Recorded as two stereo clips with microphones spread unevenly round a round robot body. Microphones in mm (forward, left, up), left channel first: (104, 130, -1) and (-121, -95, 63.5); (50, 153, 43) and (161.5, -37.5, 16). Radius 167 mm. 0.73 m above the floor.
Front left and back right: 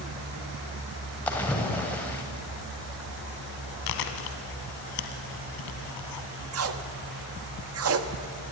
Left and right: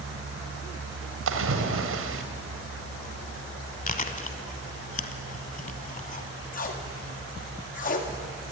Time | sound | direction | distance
1.3 | a splash | 40° right | 2.5 m
3.9 | chewing | 65° left | 2.0 m
6.5 | tape being pulled | straight behind | 1.5 m